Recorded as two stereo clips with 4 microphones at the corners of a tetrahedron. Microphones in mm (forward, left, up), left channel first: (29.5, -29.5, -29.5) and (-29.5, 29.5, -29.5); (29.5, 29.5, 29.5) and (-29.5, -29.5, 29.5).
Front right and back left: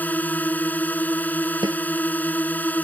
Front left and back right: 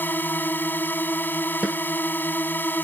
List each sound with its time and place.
0.0 s a drone: 5° left
1.6 s a snare drum: 150° left